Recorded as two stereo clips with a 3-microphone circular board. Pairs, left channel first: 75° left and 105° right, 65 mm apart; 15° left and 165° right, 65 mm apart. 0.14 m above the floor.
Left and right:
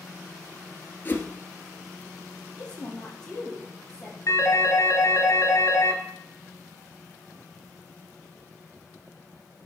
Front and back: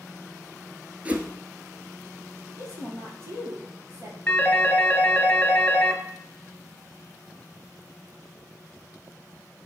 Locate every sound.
1.1 s a whoosh: 130° left, 1.1 m
2.5 s a woman speaking: 155° left, 4 m
4.3 s a phone ringing: 80° left, 1.4 m